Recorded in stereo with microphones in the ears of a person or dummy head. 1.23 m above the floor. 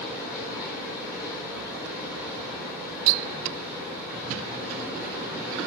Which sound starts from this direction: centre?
Running water, at 0.0 s.